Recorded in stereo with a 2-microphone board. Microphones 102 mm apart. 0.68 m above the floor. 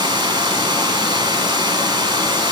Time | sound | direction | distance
0.0 | running water | 45° right (ahead or behind) | 0.9 m